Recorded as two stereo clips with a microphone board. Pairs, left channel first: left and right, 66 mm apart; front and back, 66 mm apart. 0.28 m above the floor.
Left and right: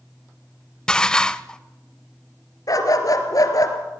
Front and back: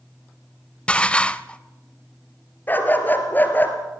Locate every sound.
0.9 s dishes clattering: 35° left, 0.6 m
2.7 s a dog barking: 60° left, 2 m